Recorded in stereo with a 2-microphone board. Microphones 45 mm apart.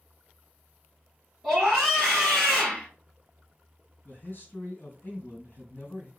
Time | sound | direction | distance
1.4 | a scream | centre (ahead or behind) | 3.5 m
4.0 | a man speaking | 50° left (ahead or behind) | 2.5 m